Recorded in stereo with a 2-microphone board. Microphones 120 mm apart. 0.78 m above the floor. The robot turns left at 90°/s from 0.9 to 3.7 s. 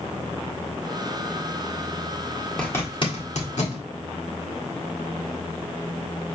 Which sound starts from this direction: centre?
A zipper, at 2.6 s.